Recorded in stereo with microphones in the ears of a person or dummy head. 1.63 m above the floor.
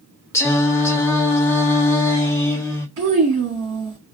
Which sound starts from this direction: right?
A child speaking, at 3.0 s.